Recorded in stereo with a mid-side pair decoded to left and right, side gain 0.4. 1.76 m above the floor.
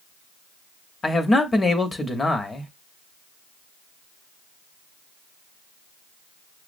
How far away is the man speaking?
About 1.0 m.